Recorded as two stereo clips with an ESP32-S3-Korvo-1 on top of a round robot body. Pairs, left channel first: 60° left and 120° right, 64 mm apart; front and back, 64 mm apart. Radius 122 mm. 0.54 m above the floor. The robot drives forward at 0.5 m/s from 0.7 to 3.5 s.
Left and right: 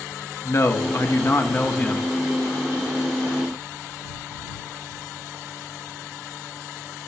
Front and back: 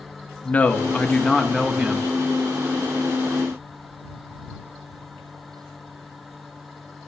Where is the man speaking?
55° left, 1.1 m; by 2.1 s 115° left, 1.1 m.